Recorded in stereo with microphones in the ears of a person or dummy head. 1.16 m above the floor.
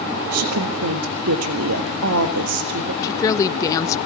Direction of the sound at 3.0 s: 20° left (ahead or behind).